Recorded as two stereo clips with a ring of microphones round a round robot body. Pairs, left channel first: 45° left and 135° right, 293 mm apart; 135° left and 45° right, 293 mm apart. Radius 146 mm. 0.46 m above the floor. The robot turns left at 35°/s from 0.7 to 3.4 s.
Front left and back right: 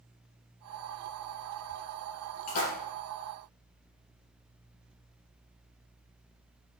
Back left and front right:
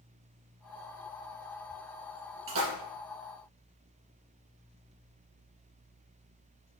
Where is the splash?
5° left, 4 m; by 2.7 s 5° right, 4 m.